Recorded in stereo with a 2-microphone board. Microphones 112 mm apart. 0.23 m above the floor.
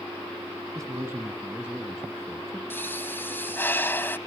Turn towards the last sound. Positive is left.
turn(degrees=20)  # may be behind; listen again after turning